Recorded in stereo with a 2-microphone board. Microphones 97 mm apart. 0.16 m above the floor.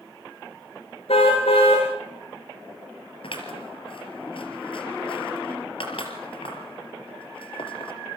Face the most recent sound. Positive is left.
turn(degrees=65)  # may be behind; listen again after turning